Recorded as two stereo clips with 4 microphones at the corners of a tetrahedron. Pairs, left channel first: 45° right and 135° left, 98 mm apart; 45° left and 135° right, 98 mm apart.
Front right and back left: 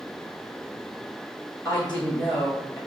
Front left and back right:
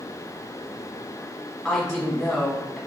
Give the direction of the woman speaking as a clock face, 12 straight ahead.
2 o'clock.